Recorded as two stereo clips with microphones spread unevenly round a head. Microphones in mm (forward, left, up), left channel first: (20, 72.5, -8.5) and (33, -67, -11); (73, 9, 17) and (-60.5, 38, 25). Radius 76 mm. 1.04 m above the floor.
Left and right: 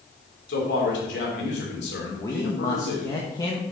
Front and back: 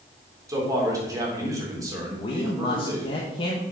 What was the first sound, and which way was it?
A man speaking, 100° left.